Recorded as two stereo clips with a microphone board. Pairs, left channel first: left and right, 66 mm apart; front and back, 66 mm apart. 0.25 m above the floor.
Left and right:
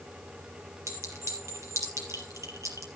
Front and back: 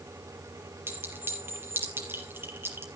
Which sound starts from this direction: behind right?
A clink, at 0.9 s.